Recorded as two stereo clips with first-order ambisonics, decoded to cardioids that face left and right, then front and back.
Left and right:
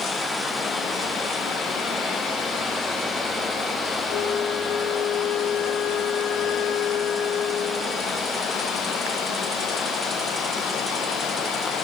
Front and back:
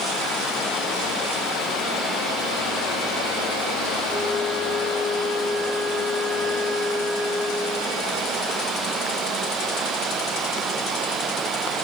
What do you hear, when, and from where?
4.1 s a flute: 105° left, 2 m